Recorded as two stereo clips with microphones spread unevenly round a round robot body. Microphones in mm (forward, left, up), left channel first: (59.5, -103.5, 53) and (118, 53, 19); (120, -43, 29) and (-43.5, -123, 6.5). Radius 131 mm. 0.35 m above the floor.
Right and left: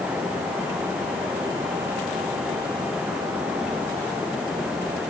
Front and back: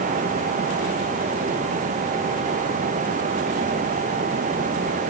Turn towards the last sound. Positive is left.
No sound to turn to.